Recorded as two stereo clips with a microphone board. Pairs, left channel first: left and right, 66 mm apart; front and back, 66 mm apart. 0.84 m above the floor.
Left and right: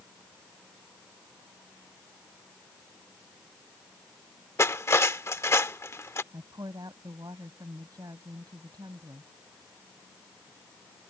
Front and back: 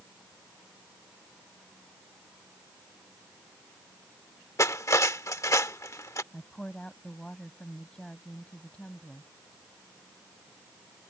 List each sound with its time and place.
4.6 s cutlery clinking: 40° left
6.3 s a woman speaking: 80° right